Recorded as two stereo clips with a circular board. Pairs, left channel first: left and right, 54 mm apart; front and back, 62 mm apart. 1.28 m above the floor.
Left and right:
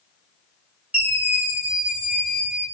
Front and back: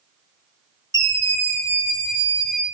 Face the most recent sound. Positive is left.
turn(degrees=155)